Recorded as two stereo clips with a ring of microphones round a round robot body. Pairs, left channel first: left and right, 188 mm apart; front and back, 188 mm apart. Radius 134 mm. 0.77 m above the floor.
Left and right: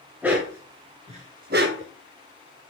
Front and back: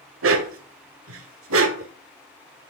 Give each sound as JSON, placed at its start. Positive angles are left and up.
{"t": 0.2, "sound": "a dog barking", "azimuth_deg": -175, "distance_m": 1.3}